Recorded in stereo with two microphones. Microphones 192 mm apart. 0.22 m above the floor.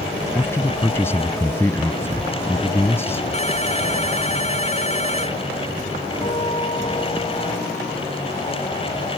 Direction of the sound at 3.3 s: 35° left (ahead or behind).